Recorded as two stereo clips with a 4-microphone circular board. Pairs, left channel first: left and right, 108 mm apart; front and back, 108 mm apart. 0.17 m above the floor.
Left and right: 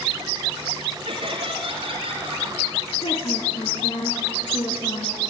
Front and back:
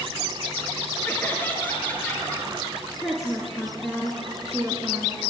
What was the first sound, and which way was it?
Laughter, 70° right.